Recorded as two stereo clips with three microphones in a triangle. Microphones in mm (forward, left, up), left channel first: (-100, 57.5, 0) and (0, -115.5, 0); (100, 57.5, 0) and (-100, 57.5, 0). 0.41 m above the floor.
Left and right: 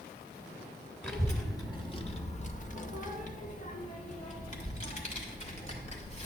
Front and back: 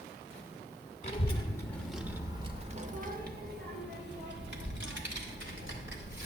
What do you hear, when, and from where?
1.0 s a child speaking: 40° left, 0.8 m; by 6.3 s 175° left, 2 m